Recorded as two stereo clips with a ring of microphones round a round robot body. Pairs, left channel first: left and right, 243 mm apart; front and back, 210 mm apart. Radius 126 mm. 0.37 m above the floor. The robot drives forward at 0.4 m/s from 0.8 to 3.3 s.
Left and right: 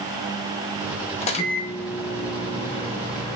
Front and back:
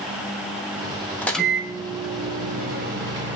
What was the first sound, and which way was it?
A microwave, 70° left.